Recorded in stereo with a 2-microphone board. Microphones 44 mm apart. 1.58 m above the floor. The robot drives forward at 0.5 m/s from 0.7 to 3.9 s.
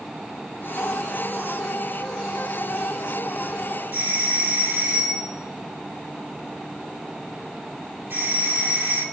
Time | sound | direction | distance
3.9 | a doorbell | 60° right (ahead or behind) | 3.5 m